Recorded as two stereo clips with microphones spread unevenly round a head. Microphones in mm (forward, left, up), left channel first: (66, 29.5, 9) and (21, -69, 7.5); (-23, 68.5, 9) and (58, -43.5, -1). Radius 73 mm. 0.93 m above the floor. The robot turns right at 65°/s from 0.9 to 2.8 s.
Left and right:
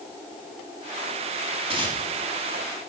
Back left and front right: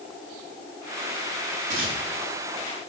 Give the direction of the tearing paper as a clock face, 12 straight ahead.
3 o'clock.